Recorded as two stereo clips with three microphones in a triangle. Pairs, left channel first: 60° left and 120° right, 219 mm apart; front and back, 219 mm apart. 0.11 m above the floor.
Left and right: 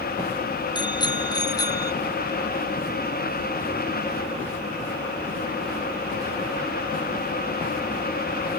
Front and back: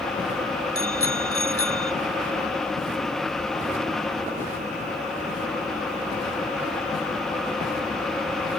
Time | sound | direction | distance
0.8 | a bicycle bell | 10° right | ?